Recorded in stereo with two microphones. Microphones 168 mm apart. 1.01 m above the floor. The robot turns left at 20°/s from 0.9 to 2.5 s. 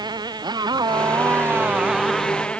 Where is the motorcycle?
155° right; by 2.6 s 175° left.